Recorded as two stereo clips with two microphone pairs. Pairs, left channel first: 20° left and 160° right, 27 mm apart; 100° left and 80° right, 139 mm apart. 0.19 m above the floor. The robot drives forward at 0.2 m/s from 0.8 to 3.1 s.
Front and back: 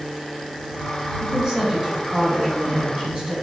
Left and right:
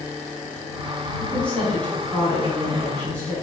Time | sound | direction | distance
1.2 | a woman speaking | 165° left | 1.2 m